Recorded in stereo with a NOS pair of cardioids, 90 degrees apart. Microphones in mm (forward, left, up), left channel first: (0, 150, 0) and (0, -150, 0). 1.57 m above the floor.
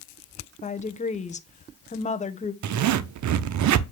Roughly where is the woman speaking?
Ahead.